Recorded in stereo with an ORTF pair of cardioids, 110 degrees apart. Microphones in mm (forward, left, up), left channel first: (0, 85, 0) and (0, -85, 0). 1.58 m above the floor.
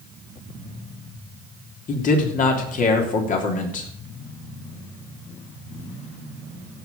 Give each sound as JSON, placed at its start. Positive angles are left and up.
{"t": 1.9, "sound": "a man speaking", "azimuth_deg": 50, "distance_m": 3.0}